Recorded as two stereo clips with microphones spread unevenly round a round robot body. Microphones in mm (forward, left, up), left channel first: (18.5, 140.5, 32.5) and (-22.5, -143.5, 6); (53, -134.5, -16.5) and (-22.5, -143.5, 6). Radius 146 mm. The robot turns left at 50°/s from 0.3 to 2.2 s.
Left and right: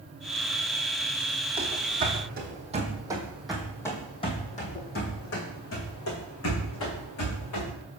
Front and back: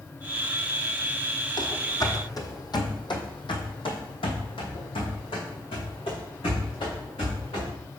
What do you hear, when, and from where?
1.6 s running footsteps: 20° right, 1.9 m; by 7.7 s 50° left, 3.5 m